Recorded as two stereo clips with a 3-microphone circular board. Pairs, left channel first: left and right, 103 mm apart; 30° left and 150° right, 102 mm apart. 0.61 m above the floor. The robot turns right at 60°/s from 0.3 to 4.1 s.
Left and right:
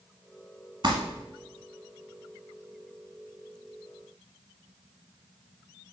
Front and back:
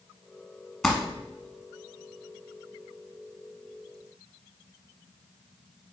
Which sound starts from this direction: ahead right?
Crumpling, at 0.8 s.